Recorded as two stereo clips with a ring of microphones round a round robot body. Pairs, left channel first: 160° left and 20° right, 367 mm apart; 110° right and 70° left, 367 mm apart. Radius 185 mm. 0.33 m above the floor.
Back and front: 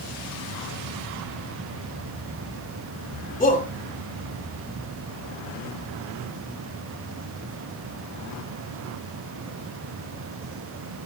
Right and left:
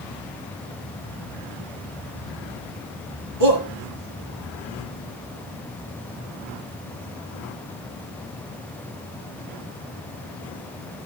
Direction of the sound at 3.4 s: 85° left.